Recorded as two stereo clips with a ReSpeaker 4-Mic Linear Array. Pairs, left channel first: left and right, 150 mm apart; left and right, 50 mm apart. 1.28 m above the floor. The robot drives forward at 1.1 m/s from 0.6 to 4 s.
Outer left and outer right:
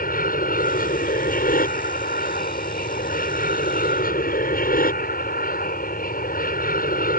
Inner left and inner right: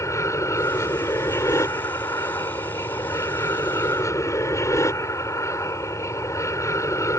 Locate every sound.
0.0 s an aircraft: 75° left (ahead or behind)